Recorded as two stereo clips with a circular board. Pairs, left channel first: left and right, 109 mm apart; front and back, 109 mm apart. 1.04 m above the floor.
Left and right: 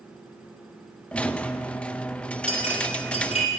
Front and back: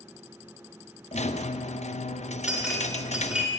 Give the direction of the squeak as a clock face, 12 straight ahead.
12 o'clock.